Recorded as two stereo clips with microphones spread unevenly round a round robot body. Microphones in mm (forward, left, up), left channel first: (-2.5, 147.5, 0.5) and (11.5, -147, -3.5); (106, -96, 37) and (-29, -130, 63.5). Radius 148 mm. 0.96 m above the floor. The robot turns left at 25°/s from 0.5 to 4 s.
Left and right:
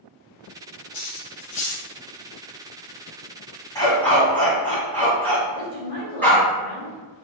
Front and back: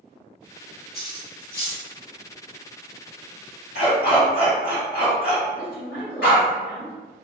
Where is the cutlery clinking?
90° left, 1.5 m; by 1.9 s 70° left, 1.5 m.